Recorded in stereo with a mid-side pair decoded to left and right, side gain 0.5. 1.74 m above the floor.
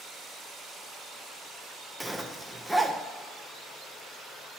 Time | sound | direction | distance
2.0 | a zipper | 5° right | 2 m